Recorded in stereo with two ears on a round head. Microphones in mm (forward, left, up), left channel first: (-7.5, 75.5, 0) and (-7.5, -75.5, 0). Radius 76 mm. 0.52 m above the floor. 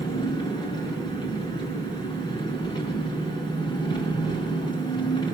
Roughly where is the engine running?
Left.